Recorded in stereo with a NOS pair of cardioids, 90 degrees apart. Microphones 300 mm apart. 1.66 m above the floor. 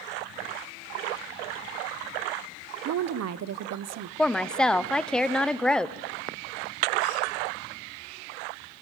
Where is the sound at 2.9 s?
60° right, 1.0 m.